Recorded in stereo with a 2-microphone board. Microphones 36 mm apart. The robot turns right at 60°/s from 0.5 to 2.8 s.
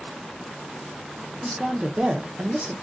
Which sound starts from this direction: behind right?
A woman speaking, at 1.4 s.